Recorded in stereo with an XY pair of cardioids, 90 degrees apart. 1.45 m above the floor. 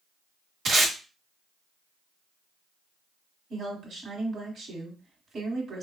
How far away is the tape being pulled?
About 1.3 m.